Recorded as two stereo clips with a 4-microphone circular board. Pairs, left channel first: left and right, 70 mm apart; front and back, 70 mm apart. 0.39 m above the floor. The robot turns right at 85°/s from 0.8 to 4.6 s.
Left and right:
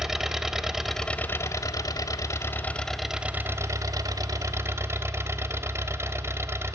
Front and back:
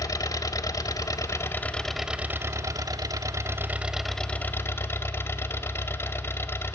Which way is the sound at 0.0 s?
10° right.